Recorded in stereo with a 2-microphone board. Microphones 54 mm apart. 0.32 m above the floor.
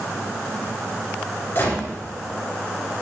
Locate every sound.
1.6 s a gunshot: 45° left (ahead or behind), 3.5 m